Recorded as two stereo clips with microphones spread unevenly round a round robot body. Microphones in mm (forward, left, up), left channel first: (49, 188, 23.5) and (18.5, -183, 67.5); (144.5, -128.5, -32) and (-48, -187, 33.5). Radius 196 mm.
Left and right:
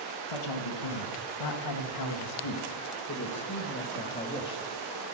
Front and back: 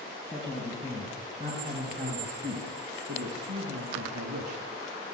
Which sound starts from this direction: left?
A man speaking, at 0.3 s.